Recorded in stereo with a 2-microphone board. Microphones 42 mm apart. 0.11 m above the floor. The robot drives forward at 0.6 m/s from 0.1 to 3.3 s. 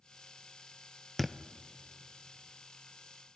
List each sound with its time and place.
1.2 s a thud: 5° left (ahead or behind), 0.8 m